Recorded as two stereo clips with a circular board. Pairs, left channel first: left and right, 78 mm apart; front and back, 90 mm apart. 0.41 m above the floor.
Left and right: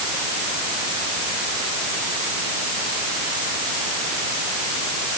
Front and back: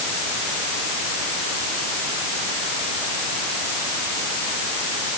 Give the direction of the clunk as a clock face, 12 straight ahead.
No clunk in this recording.